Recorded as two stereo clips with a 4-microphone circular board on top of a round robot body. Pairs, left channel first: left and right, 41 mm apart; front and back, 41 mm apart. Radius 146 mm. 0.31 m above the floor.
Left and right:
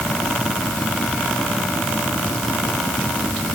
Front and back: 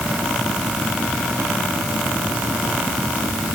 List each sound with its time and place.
Only background noise.